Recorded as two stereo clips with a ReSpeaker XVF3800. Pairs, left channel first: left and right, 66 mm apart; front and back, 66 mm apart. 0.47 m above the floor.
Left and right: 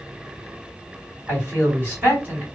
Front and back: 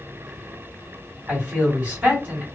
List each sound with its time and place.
1.3 s a man speaking: 125° right, 1.7 m